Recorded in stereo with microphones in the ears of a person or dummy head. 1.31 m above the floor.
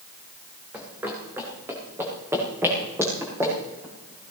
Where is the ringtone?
I don't hear a ringtone.